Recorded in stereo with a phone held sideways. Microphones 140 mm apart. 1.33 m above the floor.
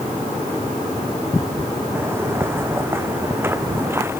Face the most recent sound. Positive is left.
turn(degrees=-15)  # may be behind; listen again after turning